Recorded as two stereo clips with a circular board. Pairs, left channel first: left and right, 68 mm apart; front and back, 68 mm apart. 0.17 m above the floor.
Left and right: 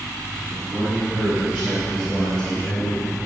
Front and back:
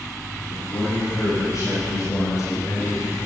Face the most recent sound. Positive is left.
turn(degrees=40)